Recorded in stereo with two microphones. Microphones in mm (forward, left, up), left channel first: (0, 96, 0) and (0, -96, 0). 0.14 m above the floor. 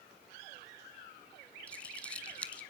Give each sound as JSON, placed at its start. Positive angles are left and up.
{"t": 1.7, "sound": "crumpling", "side_deg": 5, "distance_m": 1.0}